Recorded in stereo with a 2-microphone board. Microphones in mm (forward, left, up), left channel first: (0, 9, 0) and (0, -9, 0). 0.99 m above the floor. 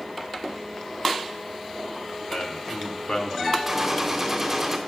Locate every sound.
2.3 s a man speaking: 75° left (ahead or behind), 3.5 m; by 3.6 s 55° left (ahead or behind), 1.9 m
3.7 s a gunshot: 15° right (ahead or behind), 2.5 m